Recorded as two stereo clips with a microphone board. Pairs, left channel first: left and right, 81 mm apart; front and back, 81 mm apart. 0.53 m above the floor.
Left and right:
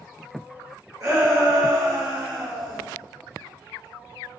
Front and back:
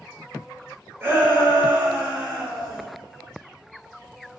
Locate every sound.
1.0 s a shout: 130° right, 1.9 m; by 2.8 s 95° right, 1.2 m